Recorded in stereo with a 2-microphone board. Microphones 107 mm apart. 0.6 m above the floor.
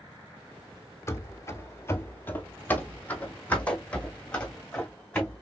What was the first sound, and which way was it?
Running footsteps, 30° left (ahead or behind).